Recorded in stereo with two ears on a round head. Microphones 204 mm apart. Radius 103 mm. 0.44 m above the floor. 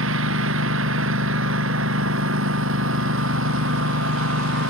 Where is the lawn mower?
60° right (ahead or behind).